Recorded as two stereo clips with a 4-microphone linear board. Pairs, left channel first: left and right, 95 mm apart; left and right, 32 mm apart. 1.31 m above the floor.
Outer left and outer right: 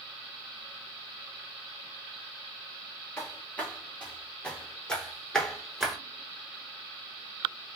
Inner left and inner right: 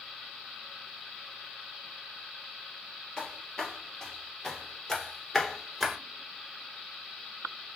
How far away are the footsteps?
About 1.9 m.